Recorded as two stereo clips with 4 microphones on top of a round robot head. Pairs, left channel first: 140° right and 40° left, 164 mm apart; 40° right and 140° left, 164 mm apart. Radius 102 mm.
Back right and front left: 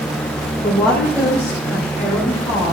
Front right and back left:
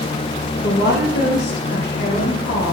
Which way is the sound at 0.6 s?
55° right.